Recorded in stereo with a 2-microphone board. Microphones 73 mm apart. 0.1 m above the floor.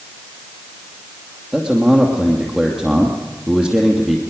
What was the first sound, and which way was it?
A man speaking, centre (ahead or behind).